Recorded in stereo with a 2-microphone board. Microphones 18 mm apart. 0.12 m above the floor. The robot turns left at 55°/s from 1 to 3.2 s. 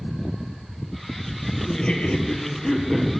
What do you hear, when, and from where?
1.7 s laughter: 95° left, 3 m; by 3.1 s 20° left, 3 m